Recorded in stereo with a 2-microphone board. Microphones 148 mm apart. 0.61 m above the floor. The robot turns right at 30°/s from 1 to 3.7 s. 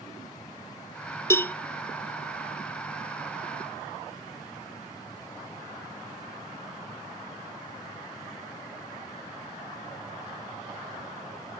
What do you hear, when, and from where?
1.3 s a cowbell: 20° left (ahead or behind), 0.6 m; by 1.5 s 10° left (ahead or behind), 0.6 m